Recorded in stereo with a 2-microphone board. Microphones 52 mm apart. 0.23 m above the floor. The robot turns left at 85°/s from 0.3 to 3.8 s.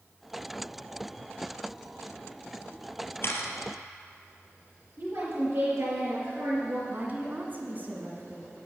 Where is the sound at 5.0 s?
55° right (ahead or behind), 4.5 m.